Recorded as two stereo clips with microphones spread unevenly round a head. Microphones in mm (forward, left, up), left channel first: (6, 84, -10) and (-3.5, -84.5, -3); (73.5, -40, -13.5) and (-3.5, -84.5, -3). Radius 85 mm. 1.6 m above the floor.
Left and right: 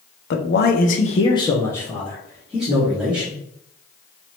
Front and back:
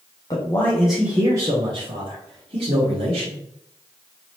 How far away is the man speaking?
About 0.7 m.